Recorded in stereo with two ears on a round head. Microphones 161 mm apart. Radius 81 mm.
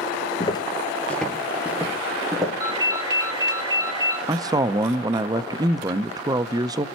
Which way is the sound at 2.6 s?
20° right (ahead or behind).